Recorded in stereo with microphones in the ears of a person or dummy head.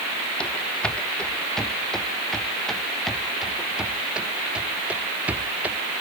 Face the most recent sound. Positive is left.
turn(degrees=-10)  # may be behind; listen again after turning